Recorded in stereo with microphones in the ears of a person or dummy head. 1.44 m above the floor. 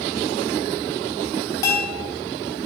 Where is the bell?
20° left (ahead or behind), 5 m.